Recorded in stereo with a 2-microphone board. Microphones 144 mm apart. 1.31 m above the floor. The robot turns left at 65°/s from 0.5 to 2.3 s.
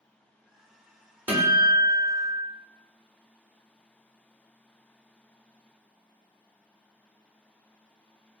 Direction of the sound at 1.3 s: 10° right (ahead or behind).